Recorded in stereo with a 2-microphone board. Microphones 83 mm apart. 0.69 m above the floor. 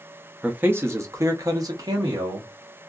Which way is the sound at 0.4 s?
15° right (ahead or behind).